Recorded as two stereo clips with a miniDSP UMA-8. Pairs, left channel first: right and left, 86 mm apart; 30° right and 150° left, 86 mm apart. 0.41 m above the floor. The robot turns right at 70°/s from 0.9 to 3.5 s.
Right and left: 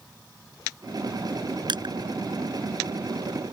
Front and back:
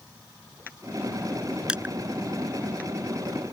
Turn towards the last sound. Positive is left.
turn(degrees=-165)